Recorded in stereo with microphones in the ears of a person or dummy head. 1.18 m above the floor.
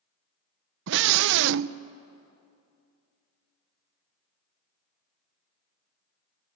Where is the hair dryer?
I don't hear a hair dryer.